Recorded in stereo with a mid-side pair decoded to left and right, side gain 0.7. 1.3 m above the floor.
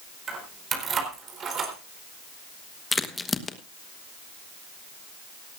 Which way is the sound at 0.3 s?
35° right.